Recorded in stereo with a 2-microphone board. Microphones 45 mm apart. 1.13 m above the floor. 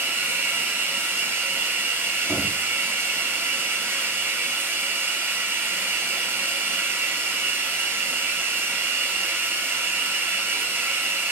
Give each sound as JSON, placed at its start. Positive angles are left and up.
{"t": 0.0, "sound": "running water", "side_deg": -45, "distance_m": 8.0}
{"t": 2.3, "sound": "knocking", "side_deg": 60, "distance_m": 8.5}